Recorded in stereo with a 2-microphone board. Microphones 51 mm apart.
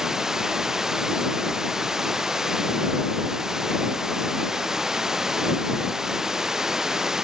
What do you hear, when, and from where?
0.0 s running water: 15° right (ahead or behind)